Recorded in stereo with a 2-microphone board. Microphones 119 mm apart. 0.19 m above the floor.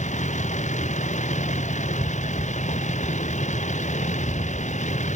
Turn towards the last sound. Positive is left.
turn(degrees=85)